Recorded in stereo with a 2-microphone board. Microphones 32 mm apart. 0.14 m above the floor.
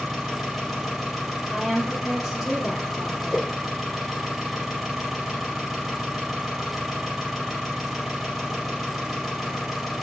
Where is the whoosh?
Centre (ahead or behind), 2 m.